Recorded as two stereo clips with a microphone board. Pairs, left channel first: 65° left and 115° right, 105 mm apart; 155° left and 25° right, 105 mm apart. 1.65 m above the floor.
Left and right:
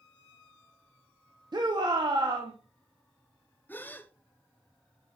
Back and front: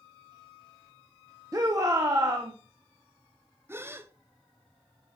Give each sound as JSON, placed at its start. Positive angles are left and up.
{"t": 1.5, "sound": "a shout", "azimuth_deg": -75, "distance_m": 0.9}
{"t": 3.7, "sound": "a gasp", "azimuth_deg": 15, "distance_m": 0.5}